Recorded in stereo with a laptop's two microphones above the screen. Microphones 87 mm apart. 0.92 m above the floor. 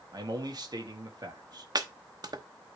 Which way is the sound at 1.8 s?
50° right (ahead or behind).